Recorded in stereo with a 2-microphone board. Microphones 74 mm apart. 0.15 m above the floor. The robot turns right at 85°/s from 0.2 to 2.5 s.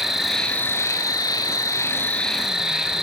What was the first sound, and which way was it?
An insect, 5° right.